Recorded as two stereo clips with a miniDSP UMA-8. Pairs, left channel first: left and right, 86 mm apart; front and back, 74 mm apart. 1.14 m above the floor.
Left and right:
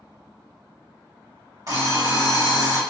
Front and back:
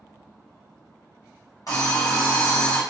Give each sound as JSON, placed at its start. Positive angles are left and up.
{"t": 1.7, "sound": "an alarm clock", "azimuth_deg": -40, "distance_m": 1.5}